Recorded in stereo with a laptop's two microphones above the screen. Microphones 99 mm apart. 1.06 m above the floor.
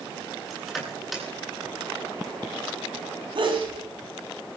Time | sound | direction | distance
0.5 | crushing | 5° right (ahead or behind) | 9.5 m
3.4 | a sneeze | 60° right (ahead or behind) | 10 m